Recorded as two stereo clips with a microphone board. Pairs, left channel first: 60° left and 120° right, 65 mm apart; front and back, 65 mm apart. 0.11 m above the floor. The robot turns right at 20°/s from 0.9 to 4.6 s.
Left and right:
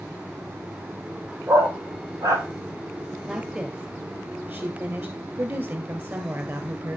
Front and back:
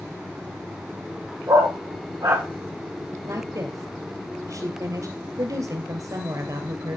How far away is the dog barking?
About 2.5 m.